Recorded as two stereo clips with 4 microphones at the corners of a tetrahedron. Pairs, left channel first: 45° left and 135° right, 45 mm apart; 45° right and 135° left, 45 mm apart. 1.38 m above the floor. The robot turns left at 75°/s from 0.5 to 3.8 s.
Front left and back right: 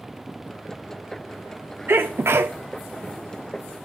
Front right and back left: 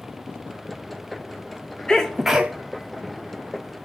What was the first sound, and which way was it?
A sneeze, 110° right.